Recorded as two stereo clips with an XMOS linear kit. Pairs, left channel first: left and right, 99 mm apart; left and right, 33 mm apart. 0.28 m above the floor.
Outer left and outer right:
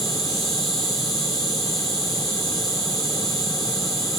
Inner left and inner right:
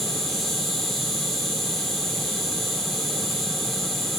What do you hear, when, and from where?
0.0 s an insect: centre (ahead or behind), 4.5 m